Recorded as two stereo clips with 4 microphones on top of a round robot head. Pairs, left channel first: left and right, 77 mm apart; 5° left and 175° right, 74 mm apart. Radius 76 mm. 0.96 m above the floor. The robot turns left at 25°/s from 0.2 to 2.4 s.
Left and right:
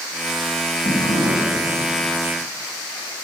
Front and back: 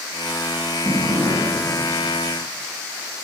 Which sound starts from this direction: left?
A drawer, at 0.8 s.